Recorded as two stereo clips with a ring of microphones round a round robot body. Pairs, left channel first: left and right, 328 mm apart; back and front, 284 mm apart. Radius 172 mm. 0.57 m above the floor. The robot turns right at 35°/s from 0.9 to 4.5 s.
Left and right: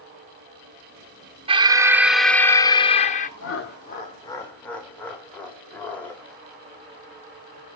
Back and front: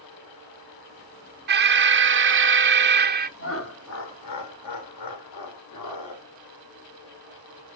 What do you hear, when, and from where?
1.5 s an alarm: 25° right, 0.6 m; by 3.3 s 40° left, 0.6 m
3.4 s laughter: 135° left, 1.9 m; by 6.2 s 175° left, 1.9 m